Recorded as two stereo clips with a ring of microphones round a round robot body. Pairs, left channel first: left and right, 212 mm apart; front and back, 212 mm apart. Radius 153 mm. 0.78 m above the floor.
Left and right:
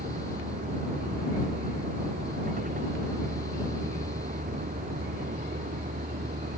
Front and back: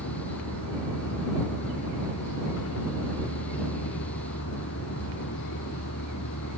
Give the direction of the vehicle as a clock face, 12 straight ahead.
1 o'clock.